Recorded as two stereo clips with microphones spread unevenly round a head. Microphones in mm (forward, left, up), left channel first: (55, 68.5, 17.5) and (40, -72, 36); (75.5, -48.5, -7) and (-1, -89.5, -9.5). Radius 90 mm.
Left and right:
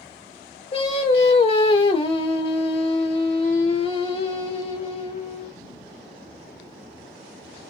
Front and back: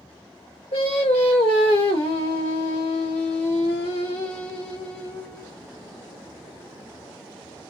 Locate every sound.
0.7 s singing: 35° left, 1.5 m